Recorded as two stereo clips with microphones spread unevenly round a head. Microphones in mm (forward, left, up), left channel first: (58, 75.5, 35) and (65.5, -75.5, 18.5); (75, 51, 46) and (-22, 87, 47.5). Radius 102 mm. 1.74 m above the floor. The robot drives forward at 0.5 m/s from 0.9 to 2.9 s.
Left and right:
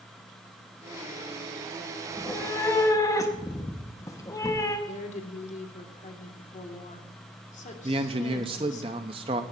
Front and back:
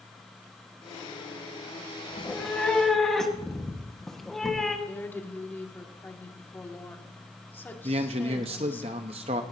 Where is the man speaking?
150° right, 0.7 m.